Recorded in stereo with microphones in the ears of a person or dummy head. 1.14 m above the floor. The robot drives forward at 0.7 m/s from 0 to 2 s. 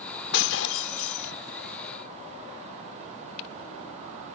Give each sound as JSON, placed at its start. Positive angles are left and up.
{"t": 0.3, "sound": "breaking glass", "side_deg": 75}